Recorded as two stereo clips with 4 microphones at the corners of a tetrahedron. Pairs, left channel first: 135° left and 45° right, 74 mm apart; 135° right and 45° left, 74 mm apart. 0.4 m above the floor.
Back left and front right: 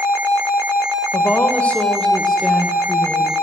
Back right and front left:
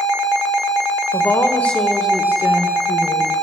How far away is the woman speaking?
About 1.7 m.